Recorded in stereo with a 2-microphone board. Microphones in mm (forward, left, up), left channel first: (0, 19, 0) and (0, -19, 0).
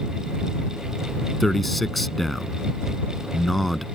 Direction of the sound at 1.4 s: 5° left (ahead or behind).